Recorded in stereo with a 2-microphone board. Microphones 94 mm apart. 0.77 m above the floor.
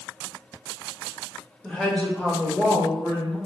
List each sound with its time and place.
1.6 s a woman speaking: 5° left (ahead or behind), 0.9 m; by 3.4 s 30° left (ahead or behind), 0.9 m